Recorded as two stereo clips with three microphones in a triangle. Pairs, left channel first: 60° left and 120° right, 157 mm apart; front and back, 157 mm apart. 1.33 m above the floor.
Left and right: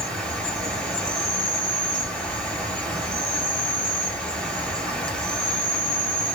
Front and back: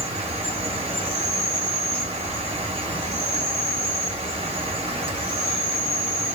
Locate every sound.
0.0 s an insect: 140° left, 1.2 m